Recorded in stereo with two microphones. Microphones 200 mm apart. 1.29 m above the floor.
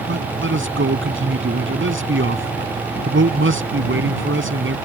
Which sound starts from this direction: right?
A man speaking, at 0.1 s.